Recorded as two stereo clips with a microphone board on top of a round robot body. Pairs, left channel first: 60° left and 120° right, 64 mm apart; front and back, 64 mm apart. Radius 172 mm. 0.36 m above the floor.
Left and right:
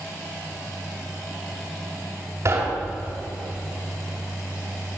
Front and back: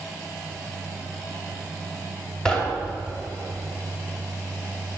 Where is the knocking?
80° right, 2.5 m.